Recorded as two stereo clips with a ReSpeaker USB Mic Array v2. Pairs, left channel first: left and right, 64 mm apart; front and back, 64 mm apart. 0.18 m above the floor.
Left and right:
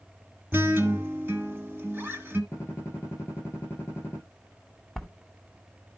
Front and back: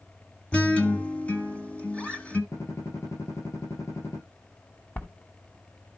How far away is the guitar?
About 1.3 m.